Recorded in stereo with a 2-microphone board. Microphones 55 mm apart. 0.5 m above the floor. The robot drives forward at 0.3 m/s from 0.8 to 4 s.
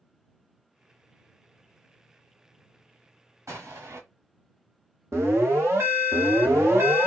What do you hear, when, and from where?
3.5 s an explosion: 65° right (ahead or behind), 1.4 m; by 4.0 s 60° right (ahead or behind), 1.4 m
5.1 s an alarm: 55° right (ahead or behind), 1.2 m